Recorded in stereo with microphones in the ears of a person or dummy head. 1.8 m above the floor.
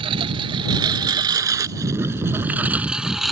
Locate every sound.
0.0 s a lawn mower: 30° right (ahead or behind); by 3.3 s centre (ahead or behind)